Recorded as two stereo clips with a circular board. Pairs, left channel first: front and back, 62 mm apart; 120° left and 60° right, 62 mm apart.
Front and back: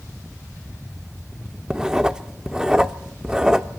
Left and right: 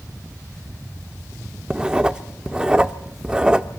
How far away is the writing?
About 0.6 m.